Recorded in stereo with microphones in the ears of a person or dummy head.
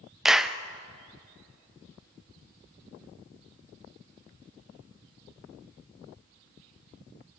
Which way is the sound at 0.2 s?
5° right (ahead or behind).